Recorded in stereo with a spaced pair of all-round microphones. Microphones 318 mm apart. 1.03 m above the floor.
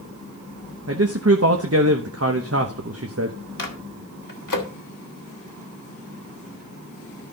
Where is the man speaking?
50° right (ahead or behind), 1.0 m.